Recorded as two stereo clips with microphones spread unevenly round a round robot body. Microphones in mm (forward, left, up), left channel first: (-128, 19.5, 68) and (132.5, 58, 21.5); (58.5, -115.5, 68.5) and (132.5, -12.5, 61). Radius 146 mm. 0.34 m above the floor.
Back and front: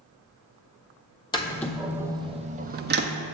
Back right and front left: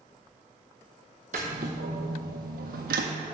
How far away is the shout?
I don't hear a shout.